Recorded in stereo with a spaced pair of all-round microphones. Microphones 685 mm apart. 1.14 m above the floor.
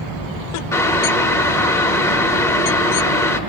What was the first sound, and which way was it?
Boiling, 5° left (ahead or behind).